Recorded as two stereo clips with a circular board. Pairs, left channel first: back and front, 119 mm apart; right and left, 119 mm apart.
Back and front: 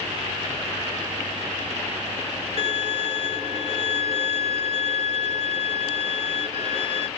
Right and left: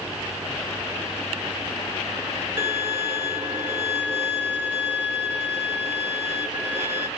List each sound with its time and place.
2.6 s a violin: 20° left, 1.1 m